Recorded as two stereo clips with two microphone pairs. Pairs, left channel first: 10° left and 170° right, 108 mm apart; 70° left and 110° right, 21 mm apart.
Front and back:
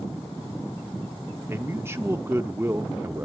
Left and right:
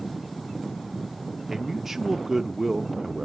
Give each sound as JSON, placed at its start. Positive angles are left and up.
{"t": 1.5, "sound": "a man speaking", "azimuth_deg": -160, "distance_m": 0.7}